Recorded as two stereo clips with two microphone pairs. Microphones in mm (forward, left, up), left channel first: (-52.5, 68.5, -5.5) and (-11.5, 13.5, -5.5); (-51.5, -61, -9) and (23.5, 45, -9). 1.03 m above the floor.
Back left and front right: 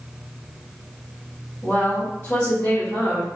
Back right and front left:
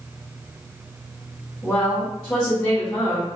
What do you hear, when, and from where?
1.6 s a woman speaking: straight behind, 1.4 m